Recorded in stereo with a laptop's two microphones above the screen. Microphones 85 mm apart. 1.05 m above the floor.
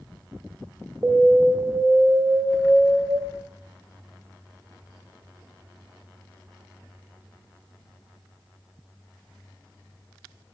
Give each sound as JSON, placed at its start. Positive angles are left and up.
{"t": 1.0, "sound": "an alarm", "side_deg": -25, "distance_m": 0.6}